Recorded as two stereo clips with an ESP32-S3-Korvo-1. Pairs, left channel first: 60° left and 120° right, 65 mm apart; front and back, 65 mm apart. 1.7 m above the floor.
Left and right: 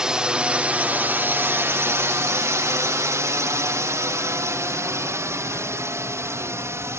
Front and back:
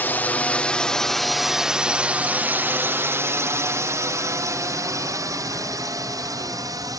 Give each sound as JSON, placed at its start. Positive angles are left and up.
{"t": 0.0, "sound": "a drone", "azimuth_deg": -45}